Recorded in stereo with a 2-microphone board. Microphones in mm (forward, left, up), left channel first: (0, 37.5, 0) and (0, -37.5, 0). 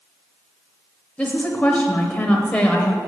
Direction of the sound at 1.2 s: 15° left (ahead or behind).